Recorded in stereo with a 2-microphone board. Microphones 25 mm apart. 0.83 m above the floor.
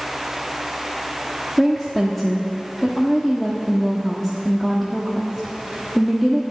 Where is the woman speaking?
5° left (ahead or behind), 1.2 m.